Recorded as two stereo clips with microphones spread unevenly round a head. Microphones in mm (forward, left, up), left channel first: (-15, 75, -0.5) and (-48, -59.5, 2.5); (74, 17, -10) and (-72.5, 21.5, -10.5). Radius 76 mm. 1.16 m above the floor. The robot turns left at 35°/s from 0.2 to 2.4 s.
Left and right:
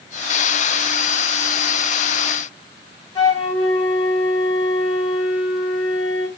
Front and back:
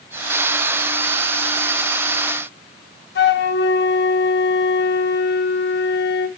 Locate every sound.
3.1 s a flute: 10° left, 1.6 m